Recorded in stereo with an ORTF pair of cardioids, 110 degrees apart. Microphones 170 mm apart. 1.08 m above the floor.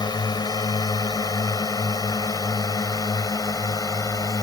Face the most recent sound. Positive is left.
turn(degrees=20)